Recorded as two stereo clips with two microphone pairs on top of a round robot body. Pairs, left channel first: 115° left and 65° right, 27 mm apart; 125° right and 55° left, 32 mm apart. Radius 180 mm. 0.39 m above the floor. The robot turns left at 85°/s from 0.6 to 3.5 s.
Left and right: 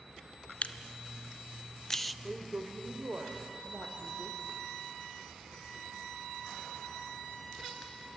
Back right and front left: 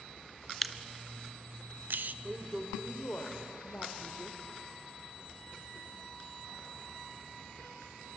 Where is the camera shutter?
150° left, 0.6 m; by 2.1 s 20° left, 0.6 m.